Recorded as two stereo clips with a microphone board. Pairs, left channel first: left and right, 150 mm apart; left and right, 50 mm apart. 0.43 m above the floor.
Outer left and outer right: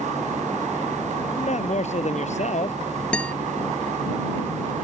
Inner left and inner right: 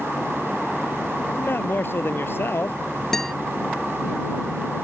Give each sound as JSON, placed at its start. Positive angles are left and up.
{"t": 1.4, "sound": "a man speaking", "side_deg": 50}
{"t": 3.1, "sound": "a guitar", "side_deg": 10}